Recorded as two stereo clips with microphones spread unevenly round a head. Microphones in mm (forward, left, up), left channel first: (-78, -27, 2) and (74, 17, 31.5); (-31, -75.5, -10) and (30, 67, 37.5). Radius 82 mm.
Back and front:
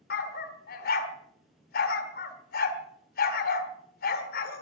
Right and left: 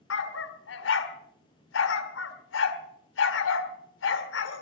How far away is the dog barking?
About 1.5 m.